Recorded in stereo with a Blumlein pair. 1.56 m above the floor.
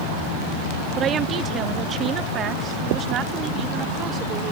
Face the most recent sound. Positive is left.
turn(degrees=-30)